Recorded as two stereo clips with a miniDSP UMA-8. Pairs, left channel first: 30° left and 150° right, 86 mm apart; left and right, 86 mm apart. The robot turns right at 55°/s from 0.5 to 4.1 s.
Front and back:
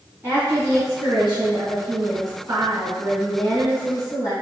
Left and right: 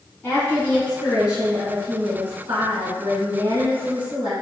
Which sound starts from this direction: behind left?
A woman speaking, at 0.2 s.